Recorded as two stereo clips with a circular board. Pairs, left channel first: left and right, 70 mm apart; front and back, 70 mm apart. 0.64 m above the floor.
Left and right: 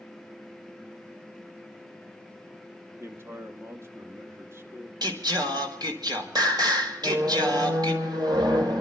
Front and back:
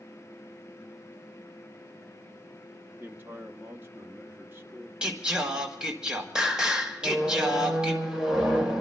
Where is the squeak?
100° right, 2 m.